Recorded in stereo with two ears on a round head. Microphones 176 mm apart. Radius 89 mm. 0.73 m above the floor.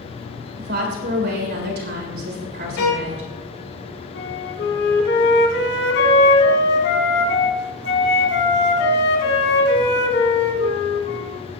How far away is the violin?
About 4.5 m.